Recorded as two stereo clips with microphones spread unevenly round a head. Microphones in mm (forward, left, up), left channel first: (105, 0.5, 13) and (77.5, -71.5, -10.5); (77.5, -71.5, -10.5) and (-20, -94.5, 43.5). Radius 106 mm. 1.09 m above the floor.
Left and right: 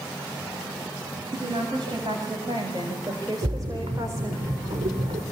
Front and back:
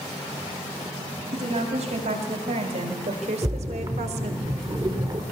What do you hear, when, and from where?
1.3 s a woman speaking: straight behind, 7 m; by 4.4 s 175° left, 2.5 m
3.4 s a splash: 120° right, 4 m